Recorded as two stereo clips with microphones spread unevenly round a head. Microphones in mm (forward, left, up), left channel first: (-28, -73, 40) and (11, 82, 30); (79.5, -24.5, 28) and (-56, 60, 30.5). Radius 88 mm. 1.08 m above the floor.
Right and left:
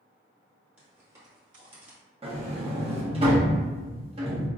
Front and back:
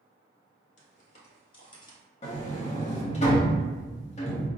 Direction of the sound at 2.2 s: 20° left.